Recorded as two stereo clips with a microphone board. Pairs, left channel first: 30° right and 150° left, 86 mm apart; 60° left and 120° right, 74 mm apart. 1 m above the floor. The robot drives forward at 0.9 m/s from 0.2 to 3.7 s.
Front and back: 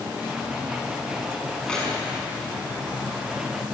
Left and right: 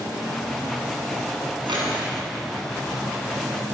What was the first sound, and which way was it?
Keys jangling, 110° right.